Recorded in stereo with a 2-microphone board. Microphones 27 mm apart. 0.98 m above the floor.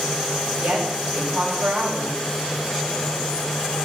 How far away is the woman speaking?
About 6 m.